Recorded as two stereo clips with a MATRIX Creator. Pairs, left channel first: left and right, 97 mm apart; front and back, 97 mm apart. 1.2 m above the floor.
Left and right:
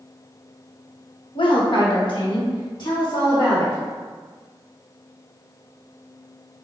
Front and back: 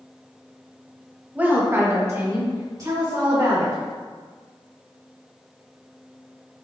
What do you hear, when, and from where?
1.4 s a woman speaking: 105° left, 0.8 m; by 3.8 s 135° left, 2.5 m